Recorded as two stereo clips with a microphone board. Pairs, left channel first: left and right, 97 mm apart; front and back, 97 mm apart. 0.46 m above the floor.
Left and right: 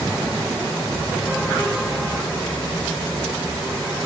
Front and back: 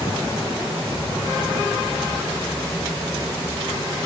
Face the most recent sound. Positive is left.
No sound to turn to.